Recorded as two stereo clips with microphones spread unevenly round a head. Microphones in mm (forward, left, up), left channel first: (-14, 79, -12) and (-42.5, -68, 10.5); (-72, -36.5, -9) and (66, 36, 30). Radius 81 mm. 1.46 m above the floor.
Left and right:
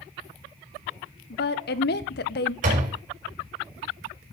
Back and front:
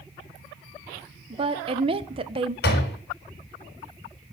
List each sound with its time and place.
1.3 s a woman speaking: 85° left, 1.0 m
2.6 s a door slam: 130° right, 4.5 m